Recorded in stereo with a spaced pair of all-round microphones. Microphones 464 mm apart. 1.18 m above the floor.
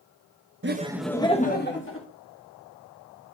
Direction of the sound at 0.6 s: 25° right (ahead or behind).